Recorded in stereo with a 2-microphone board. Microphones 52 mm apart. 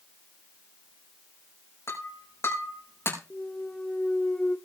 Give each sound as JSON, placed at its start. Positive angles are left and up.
{"t": 1.9, "sound": "breaking glass", "side_deg": 65, "distance_m": 6.5}
{"t": 3.3, "sound": "a clunk", "side_deg": 20, "distance_m": 1.1}